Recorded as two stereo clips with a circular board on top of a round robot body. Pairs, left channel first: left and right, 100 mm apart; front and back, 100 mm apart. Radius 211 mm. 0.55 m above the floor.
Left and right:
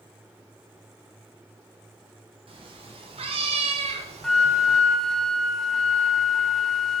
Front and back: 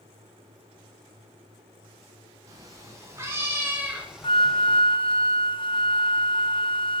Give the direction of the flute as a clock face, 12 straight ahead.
12 o'clock.